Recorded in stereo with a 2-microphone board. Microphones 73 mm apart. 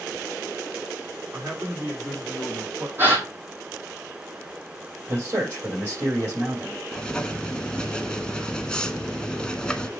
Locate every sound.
1.3 s a man speaking: 30° right (ahead or behind), 5.5 m
3.0 s a gasp: 30° right (ahead or behind), 2.5 m
5.1 s a man speaking: 35° right (ahead or behind), 5.5 m
6.9 s writing: 10° left (ahead or behind), 0.7 m